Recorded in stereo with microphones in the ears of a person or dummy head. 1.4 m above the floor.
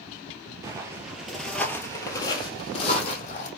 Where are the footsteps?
20° right (ahead or behind), 1.6 m; by 3.5 s 50° left (ahead or behind), 3 m.